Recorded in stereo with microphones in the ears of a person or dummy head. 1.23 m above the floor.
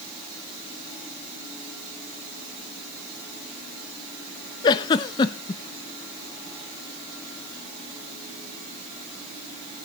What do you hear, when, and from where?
4.6 s a giggle: 25° left (ahead or behind), 0.7 m